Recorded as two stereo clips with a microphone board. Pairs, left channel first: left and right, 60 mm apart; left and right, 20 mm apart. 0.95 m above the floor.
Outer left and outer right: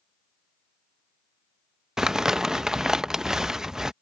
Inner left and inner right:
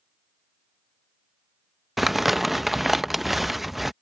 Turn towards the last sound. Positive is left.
turn(degrees=-10)  # may be behind; listen again after turning